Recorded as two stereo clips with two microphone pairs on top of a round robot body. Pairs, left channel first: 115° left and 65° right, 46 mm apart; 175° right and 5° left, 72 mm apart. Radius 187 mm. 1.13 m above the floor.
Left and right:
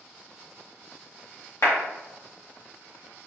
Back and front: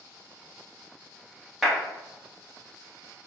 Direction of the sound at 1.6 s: 90° left.